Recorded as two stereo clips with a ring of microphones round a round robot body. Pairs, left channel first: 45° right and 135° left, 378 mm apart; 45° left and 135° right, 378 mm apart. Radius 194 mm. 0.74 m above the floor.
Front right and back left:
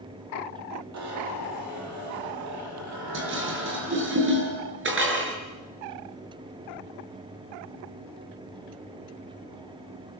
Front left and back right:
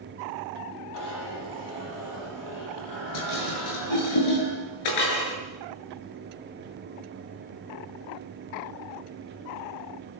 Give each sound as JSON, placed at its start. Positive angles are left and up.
{"t": 0.9, "sound": "a zipper", "azimuth_deg": 85, "distance_m": 9.0}
{"t": 3.1, "sound": "dishes clattering", "azimuth_deg": 75, "distance_m": 7.5}